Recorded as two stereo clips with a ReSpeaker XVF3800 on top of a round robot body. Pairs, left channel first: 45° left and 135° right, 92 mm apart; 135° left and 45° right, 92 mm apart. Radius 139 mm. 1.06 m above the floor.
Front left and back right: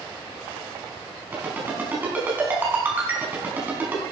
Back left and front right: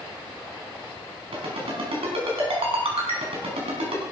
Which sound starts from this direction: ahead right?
A ringtone, at 1.3 s.